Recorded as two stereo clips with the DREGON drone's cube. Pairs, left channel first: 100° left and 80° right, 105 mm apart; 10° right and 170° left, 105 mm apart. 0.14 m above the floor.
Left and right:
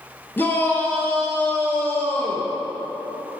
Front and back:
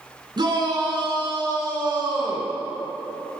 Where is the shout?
165° left, 2.5 m.